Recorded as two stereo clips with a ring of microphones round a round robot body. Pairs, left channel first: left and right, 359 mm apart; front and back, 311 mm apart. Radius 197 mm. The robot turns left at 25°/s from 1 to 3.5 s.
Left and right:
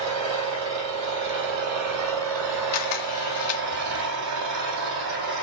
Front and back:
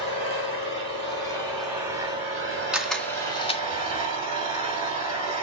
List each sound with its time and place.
0.0 s an engine running: 75° right, 4.5 m; by 5.4 s 135° right, 4.5 m
2.7 s a camera shutter: 95° left, 2 m; by 3.6 s 75° left, 2 m